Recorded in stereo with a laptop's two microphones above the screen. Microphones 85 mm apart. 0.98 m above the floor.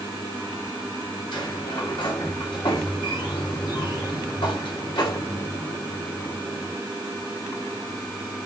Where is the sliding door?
70° left (ahead or behind), 2.5 m.